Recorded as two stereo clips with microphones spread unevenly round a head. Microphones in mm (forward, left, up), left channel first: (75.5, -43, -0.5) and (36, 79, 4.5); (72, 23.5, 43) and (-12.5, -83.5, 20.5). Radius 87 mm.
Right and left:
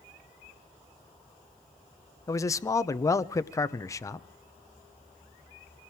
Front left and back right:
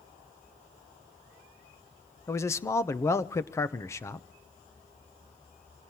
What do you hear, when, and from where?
2.3 s a man speaking: 10° right, 0.9 m